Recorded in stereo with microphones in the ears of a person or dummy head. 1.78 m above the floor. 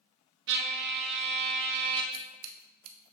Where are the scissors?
80° right, 0.5 m.